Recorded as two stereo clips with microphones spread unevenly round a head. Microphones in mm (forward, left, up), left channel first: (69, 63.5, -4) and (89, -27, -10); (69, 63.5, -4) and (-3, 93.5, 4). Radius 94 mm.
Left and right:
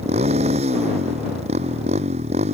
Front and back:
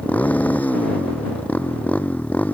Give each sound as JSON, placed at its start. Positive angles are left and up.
{"t": 0.0, "sound": "a motorcycle", "azimuth_deg": -105}